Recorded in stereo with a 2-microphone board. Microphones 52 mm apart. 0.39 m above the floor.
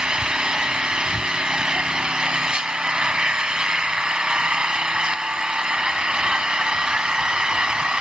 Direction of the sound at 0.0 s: 20° right (ahead or behind).